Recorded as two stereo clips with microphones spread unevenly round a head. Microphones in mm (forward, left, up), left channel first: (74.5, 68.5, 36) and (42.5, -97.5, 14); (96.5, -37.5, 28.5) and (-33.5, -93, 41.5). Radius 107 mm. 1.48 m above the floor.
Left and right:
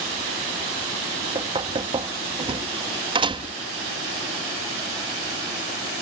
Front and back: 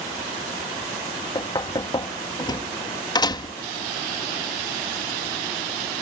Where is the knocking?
40° right.